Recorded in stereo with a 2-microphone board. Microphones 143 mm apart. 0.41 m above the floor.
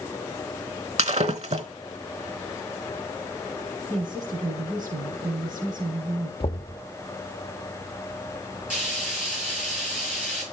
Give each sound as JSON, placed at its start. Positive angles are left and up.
{"t": 1.0, "sound": "breaking glass", "side_deg": -50, "distance_m": 0.9}
{"t": 3.9, "sound": "a woman speaking", "side_deg": -70, "distance_m": 4.0}
{"t": 6.4, "sound": "knocking", "side_deg": 40, "distance_m": 0.7}
{"t": 8.7, "sound": "frying", "side_deg": -10, "distance_m": 8.5}